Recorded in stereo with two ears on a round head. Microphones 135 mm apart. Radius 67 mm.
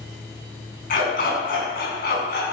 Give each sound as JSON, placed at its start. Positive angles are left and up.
{"t": 0.9, "sound": "a dog barking", "side_deg": 65, "distance_m": 5.5}